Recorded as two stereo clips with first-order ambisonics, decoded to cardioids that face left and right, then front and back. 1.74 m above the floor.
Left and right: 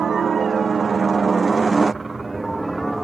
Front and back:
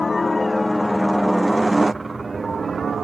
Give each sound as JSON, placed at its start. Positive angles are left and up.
{"t": 0.0, "sound": "a helicopter", "azimuth_deg": -60}